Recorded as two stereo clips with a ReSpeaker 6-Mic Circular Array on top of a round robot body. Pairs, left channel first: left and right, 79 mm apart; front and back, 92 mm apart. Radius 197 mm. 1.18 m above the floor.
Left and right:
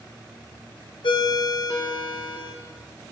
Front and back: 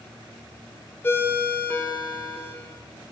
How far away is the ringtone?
About 1.2 m.